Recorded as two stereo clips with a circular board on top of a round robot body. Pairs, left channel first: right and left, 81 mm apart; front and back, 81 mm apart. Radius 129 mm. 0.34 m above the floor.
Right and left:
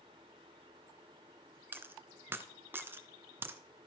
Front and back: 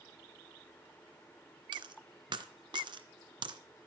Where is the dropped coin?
155° left, 1.9 m.